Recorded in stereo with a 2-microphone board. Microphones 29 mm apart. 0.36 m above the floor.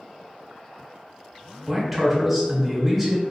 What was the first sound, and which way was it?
A man speaking, centre (ahead or behind).